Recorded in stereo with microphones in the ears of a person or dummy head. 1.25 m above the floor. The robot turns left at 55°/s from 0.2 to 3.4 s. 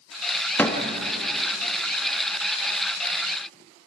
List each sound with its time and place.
0.6 s a door slam: 10° left (ahead or behind), 1.7 m; by 0.8 s 5° right (ahead or behind), 1.7 m